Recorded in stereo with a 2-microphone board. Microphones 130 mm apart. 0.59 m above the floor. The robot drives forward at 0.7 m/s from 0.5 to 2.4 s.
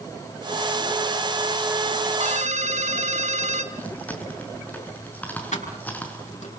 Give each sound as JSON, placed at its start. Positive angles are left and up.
{"t": 2.2, "sound": "a ringtone", "side_deg": -65, "distance_m": 4.0}
{"t": 3.7, "sound": "chewing", "side_deg": 10, "distance_m": 5.0}
{"t": 5.5, "sound": "keys jangling", "side_deg": 65, "distance_m": 6.0}